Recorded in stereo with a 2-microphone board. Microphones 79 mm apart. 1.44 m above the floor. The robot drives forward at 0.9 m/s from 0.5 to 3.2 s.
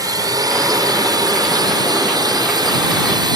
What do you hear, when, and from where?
0.0 s a drone: 50° right (ahead or behind); by 3.4 s 65° right (ahead or behind)